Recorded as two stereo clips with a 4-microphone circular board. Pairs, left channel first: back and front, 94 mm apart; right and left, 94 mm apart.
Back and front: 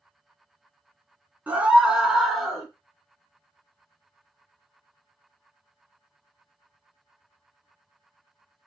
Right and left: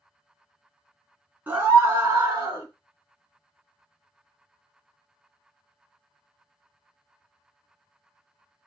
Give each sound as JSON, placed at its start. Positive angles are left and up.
{"t": 1.5, "sound": "a scream", "azimuth_deg": 50, "distance_m": 1.1}